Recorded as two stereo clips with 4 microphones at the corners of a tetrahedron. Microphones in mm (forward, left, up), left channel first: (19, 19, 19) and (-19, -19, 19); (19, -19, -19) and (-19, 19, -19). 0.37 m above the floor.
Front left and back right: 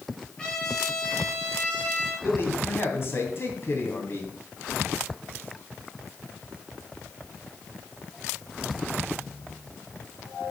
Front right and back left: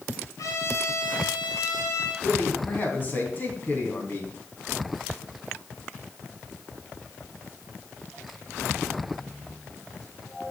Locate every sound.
0.4 s a trumpet: 30° right, 3.5 m
2.2 s a man speaking: 10° left, 2.5 m